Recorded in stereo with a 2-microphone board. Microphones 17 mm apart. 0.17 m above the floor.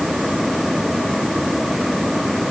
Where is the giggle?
No giggle in this recording.